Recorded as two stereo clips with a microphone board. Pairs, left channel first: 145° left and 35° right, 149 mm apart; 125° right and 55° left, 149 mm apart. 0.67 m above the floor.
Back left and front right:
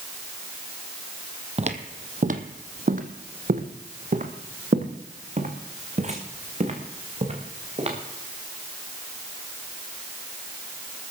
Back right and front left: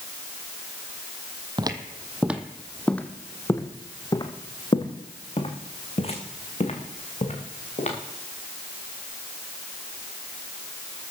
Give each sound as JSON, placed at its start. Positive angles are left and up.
{"t": 1.6, "sound": "footsteps", "azimuth_deg": 0, "distance_m": 1.1}